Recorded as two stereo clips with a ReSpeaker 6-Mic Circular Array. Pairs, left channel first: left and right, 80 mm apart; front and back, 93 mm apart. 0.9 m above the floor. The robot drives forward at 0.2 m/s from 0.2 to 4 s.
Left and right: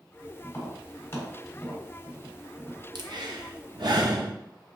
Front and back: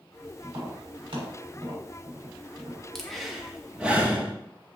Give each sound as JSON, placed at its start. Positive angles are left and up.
{"t": 0.4, "sound": "tapping", "azimuth_deg": 145, "distance_m": 1.5}
{"t": 3.0, "sound": "breathing", "azimuth_deg": -85, "distance_m": 0.6}